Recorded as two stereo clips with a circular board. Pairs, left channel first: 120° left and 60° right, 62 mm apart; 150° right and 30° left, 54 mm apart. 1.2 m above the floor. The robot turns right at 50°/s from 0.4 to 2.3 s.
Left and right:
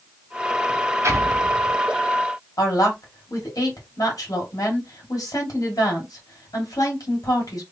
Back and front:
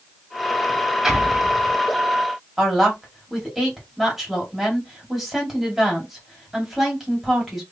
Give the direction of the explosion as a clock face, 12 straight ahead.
2 o'clock.